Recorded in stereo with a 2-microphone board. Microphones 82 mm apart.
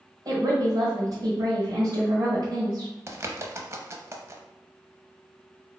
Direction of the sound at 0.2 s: 55° right (ahead or behind).